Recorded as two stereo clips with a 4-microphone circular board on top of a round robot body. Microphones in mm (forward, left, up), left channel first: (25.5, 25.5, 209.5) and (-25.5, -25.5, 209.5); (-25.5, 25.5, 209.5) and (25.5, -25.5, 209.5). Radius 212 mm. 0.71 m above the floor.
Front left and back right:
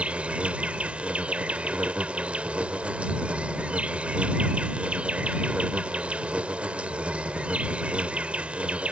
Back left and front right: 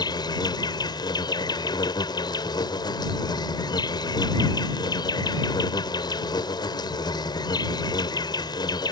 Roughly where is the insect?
Behind left.